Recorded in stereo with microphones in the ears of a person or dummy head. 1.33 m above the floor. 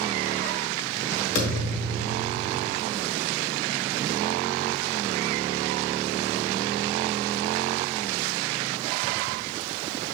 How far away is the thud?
About 1.6 m.